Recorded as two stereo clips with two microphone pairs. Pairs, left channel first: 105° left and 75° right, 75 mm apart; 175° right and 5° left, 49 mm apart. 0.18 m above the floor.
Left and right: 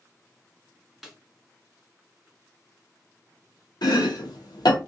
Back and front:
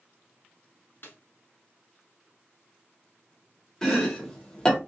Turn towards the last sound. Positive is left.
turn(degrees=110)